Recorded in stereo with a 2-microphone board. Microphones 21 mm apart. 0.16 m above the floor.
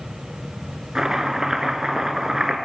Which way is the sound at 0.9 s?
30° right (ahead or behind).